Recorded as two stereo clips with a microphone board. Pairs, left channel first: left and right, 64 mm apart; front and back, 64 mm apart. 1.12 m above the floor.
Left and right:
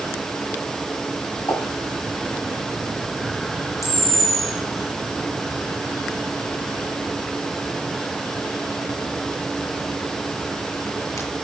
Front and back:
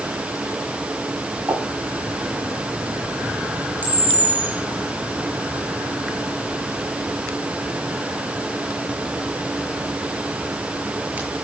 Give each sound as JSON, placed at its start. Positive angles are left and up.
{"t": 1.5, "sound": "a pop", "azimuth_deg": 130, "distance_m": 9.5}
{"t": 3.8, "sound": "a camera shutter", "azimuth_deg": 120, "distance_m": 6.5}